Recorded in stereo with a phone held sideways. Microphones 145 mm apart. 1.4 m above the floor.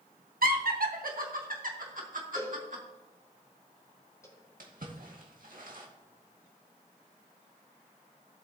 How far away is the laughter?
About 1.3 m.